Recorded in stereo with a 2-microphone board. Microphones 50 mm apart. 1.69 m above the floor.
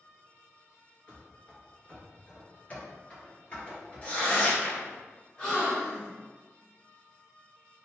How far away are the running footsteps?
About 1.8 m.